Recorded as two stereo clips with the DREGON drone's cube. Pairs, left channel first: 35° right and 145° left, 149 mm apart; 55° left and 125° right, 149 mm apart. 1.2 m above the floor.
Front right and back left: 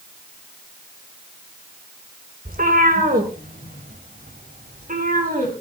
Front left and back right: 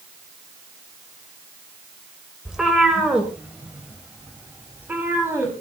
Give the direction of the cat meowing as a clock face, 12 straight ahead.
7 o'clock.